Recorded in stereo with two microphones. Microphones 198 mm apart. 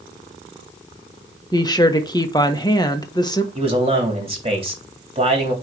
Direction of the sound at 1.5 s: 20° left (ahead or behind).